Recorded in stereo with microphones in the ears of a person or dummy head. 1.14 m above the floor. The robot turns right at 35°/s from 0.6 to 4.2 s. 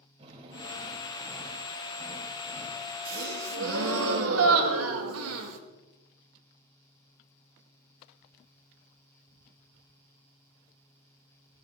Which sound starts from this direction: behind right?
A gasp, at 3.0 s.